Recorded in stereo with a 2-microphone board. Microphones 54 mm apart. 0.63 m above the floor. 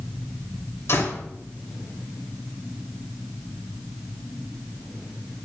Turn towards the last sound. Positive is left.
turn(degrees=55)  # may be behind; listen again after turning